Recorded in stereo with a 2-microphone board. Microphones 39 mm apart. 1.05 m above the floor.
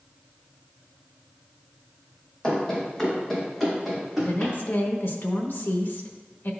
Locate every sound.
2.4 s running footsteps: 20° left (ahead or behind), 2.5 m; by 4.5 s 5° right (ahead or behind), 4 m
4.2 s a woman speaking: 65° left (ahead or behind), 0.9 m